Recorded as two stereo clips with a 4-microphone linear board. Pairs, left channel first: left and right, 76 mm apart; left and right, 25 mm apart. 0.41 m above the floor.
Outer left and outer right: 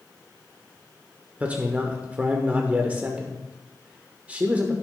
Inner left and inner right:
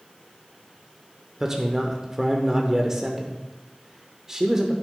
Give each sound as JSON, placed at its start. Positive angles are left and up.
{"t": 1.4, "sound": "a man speaking", "side_deg": -20, "distance_m": 0.9}